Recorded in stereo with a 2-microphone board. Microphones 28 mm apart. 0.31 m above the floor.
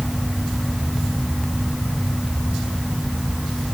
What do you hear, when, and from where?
Only background noise.